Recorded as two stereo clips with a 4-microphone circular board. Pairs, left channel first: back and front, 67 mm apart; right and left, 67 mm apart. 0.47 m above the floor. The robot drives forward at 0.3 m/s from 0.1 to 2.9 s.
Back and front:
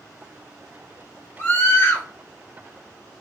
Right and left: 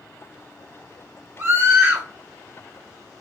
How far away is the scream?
About 1.2 m.